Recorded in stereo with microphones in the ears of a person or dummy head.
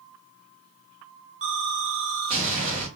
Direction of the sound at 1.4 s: 35° right (ahead or behind).